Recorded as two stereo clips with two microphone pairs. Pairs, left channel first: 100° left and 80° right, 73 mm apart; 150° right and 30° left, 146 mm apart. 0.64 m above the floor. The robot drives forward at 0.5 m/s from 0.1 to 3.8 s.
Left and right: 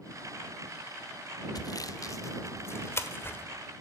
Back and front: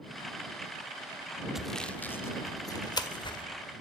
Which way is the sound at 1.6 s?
120° left.